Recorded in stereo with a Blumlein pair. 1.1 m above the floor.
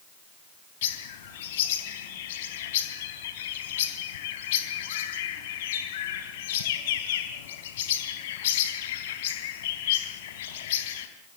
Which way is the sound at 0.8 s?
55° left.